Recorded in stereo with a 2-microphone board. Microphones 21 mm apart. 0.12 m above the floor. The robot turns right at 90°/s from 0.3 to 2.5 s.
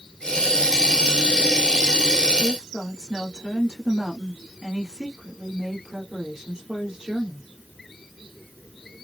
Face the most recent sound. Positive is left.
turn(degrees=-40)  # may be behind; listen again after turning